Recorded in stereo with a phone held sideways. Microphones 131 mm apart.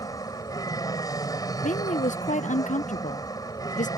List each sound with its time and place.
0.0 s an aircraft: 30° left (ahead or behind)
1.6 s a woman speaking: 85° left